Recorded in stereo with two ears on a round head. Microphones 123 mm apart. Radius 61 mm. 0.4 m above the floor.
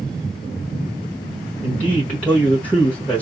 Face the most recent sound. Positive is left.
turn(degrees=10)  # may be behind; listen again after turning